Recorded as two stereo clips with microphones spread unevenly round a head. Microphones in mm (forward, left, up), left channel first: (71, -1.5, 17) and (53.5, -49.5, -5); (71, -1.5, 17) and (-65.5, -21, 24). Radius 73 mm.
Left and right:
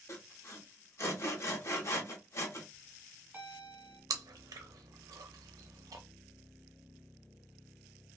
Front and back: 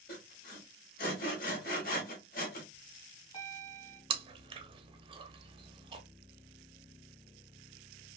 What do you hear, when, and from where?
0.1 s sawing: 40° left, 1.0 m
2.7 s a bell: 40° right, 1.7 m
4.1 s chewing: 115° right, 0.5 m